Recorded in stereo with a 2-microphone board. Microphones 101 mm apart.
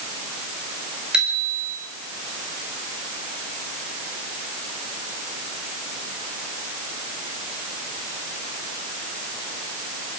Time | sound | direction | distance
1.1 | a bicycle bell | 10° right (ahead or behind) | 6 m